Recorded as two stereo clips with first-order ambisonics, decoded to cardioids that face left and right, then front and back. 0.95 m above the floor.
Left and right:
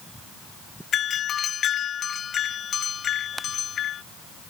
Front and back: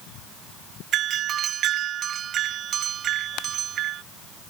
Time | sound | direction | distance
0.9 | a doorbell | 140° left | ?